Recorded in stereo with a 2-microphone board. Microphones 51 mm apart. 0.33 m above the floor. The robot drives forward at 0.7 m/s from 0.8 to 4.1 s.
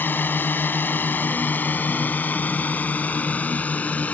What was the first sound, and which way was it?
A drone, 40° left (ahead or behind).